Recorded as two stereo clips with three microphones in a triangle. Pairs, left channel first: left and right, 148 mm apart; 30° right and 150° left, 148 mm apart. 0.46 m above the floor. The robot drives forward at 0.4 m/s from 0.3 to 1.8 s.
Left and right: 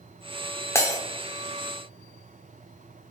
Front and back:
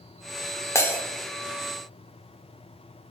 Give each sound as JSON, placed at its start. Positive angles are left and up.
{"t": 0.8, "sound": "breaking glass", "azimuth_deg": 30, "distance_m": 0.6}